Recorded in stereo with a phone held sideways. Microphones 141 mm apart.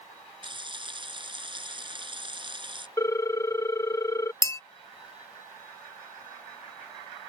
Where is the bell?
20° left (ahead or behind).